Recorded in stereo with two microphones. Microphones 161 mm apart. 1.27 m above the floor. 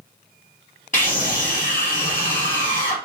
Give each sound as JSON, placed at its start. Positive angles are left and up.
{"t": 0.9, "sound": "a scream", "side_deg": 50, "distance_m": 2.5}